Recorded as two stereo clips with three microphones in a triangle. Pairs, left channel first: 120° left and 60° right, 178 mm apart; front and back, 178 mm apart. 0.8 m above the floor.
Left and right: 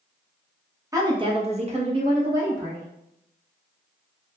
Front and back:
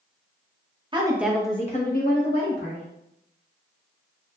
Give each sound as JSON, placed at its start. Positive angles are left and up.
{"t": 0.9, "sound": "a woman speaking", "azimuth_deg": -125, "distance_m": 1.0}